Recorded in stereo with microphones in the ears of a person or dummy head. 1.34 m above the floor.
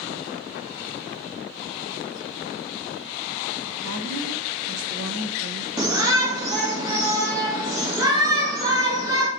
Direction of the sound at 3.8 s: 70° right (ahead or behind).